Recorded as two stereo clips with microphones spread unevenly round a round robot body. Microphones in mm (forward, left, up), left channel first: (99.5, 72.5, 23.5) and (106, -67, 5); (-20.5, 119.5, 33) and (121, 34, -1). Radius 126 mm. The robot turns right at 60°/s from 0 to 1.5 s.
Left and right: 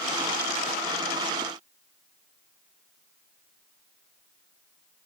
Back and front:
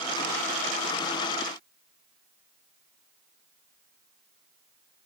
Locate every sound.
Only background noise.